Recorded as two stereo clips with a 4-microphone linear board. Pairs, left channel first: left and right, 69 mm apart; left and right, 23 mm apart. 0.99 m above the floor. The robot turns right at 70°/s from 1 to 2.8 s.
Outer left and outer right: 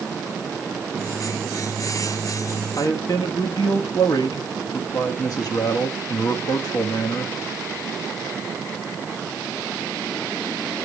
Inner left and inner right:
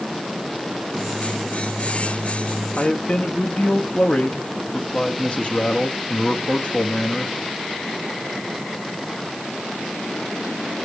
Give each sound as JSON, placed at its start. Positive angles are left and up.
{"t": 2.8, "sound": "a man speaking", "side_deg": 55, "distance_m": 1.3}